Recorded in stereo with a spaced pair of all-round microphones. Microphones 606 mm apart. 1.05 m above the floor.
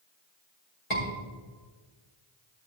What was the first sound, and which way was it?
A scream, 60° left (ahead or behind).